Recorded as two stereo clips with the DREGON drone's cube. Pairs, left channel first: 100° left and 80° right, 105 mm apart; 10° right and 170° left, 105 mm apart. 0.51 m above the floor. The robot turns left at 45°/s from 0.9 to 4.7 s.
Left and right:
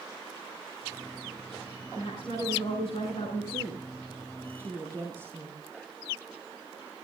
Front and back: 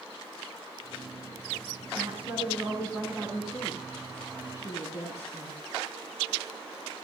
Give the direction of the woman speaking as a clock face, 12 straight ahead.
7 o'clock.